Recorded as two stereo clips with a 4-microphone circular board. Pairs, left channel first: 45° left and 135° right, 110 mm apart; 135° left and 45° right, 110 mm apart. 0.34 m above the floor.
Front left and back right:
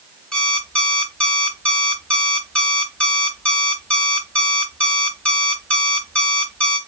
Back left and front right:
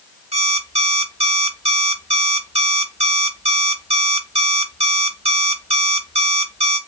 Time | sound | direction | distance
0.3 | an alarm clock | 35° right | 1.0 m